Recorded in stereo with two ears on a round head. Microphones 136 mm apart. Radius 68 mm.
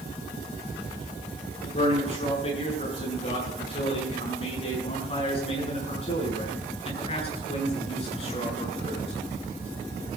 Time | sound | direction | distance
1.6 | a man speaking | 40° left (ahead or behind) | 9.5 m